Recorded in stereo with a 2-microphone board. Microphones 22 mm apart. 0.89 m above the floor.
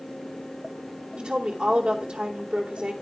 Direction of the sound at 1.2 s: 45° right (ahead or behind).